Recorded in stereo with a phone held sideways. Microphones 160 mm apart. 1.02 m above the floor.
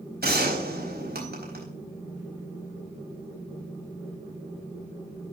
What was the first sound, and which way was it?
A gunshot, 80° right.